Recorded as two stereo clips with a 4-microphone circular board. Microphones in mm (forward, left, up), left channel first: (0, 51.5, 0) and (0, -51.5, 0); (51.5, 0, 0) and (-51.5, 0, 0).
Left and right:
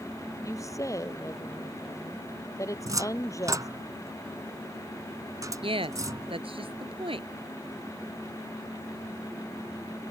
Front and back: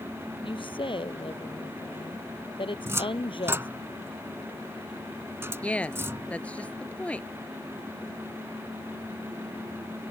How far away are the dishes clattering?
No dishes clattering in this recording.